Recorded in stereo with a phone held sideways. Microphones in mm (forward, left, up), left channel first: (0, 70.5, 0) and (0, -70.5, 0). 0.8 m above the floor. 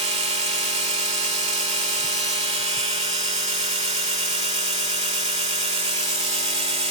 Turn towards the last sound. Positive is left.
turn(degrees=-45)  # may be behind; listen again after turning